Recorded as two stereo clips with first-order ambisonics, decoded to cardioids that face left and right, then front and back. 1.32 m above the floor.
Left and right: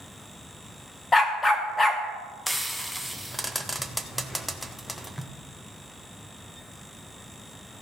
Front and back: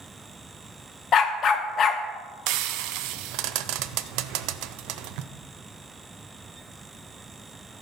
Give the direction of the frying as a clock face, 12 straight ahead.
6 o'clock.